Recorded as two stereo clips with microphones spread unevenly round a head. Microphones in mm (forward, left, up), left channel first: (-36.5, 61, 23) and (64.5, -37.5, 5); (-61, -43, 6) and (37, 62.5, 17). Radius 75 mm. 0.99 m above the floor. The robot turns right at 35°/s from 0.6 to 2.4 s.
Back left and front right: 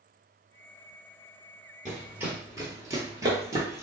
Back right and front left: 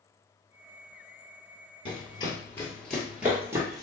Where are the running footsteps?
145° right, 1.1 m; by 3.8 s 15° left, 1.1 m.